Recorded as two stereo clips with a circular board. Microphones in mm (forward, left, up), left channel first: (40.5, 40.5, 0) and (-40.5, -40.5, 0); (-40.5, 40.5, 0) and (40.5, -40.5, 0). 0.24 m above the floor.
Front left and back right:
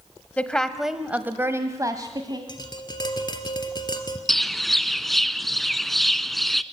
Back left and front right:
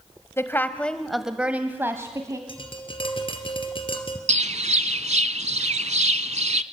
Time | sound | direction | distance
0.4 | a woman speaking | 105° left | 1.2 m
2.5 | tapping | 95° left | 2 m
4.3 | a bird | 45° right | 0.6 m